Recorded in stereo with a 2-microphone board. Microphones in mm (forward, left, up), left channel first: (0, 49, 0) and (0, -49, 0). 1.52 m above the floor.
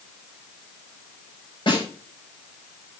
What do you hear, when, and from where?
1.7 s a snare drum: 60° left (ahead or behind), 6.5 m